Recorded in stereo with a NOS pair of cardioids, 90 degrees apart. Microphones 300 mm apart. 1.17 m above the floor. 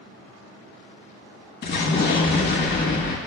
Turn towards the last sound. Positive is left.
turn(degrees=35)